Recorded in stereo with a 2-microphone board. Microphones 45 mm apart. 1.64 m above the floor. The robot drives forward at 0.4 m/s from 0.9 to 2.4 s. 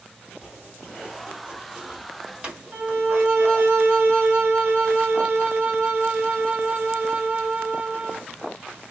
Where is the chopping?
20° right (ahead or behind), 1.3 m; by 3.7 s 25° right (ahead or behind), 1.1 m.